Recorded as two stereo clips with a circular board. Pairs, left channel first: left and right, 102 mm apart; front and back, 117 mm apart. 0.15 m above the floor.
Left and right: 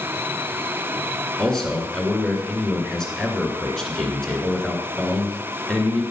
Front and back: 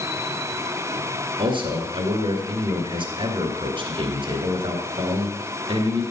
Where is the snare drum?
I don't hear a snare drum.